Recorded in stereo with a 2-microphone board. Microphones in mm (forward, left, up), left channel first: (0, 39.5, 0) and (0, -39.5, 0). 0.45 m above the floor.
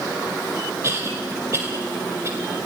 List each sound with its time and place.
0.8 s a cough: 35° right (ahead or behind), 1.7 m